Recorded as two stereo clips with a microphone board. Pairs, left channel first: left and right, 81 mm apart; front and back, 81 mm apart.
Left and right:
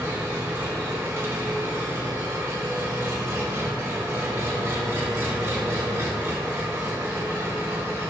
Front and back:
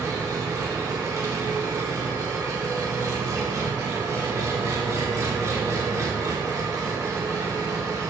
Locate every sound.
0.0 s an engine running: 140° right, 0.8 m